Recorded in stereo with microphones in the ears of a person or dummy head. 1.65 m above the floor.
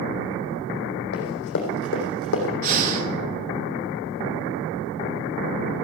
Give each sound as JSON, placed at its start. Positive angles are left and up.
{"t": 1.1, "sound": "running footsteps", "side_deg": 55, "distance_m": 3.5}
{"t": 2.6, "sound": "breathing", "side_deg": -45, "distance_m": 1.5}